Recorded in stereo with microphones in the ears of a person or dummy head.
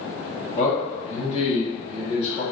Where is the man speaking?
30° left (ahead or behind), 0.8 m.